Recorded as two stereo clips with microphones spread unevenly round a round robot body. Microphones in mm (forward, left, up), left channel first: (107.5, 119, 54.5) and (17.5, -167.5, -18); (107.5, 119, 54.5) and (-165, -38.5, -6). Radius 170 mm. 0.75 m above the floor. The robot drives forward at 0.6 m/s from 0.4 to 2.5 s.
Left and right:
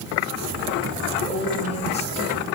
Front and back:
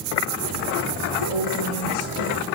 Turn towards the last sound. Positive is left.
turn(degrees=0)